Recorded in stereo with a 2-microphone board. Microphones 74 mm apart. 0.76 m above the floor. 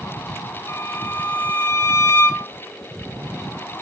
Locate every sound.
0.7 s a violin: 35° left (ahead or behind), 1.8 m